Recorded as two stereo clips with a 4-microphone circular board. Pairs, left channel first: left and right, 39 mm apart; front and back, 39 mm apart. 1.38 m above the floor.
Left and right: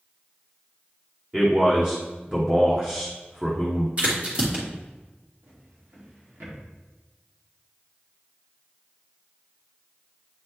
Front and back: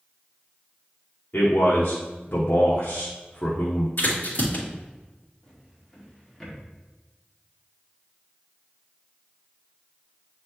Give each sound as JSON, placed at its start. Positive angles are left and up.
{"t": 1.3, "sound": "a man speaking", "azimuth_deg": -15, "distance_m": 1.1}
{"t": 4.0, "sound": "a crack", "azimuth_deg": -30, "distance_m": 2.5}
{"t": 5.4, "sound": "a drawer", "azimuth_deg": -75, "distance_m": 2.0}